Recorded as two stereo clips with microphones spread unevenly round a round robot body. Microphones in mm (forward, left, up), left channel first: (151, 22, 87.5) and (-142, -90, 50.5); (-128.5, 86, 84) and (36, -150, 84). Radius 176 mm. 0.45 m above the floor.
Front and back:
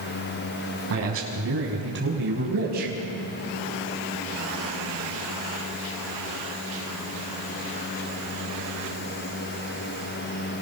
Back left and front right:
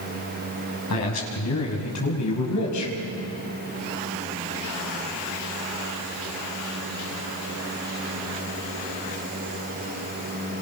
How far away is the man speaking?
About 5.5 m.